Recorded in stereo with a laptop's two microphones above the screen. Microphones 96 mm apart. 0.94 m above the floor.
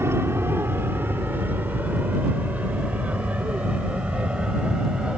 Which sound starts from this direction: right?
An aircraft, at 0.0 s.